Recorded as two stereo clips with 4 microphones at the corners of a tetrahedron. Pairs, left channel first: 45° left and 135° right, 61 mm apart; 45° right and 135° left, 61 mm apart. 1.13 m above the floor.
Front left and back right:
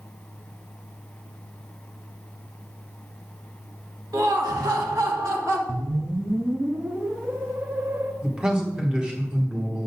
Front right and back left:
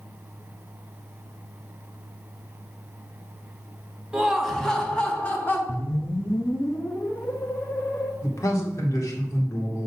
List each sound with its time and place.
4.1 s laughter: 150° right, 1.4 m; by 5.6 s 105° right, 2 m
5.7 s a whoosh: 85° right, 0.6 m
8.2 s a man speaking: 60° right, 1.6 m